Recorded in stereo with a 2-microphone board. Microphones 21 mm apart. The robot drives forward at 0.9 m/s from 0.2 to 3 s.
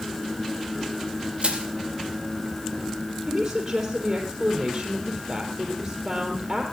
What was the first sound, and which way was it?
Crushing, 55° right (ahead or behind).